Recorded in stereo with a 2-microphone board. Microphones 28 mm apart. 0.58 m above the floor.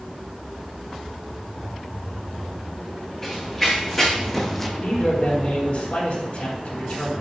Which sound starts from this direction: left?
A man speaking, at 4.8 s.